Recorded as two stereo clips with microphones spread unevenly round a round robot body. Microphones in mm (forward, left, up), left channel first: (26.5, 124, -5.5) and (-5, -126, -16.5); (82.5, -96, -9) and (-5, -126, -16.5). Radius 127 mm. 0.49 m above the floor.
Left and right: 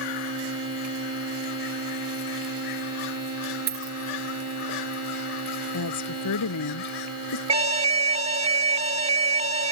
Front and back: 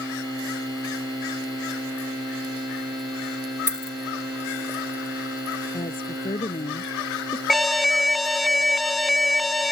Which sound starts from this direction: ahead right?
A dropped coin, at 3.7 s.